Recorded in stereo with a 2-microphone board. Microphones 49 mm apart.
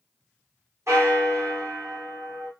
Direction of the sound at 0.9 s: 75° right (ahead or behind).